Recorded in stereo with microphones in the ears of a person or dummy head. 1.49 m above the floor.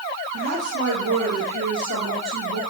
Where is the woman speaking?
75° right (ahead or behind), 2 m.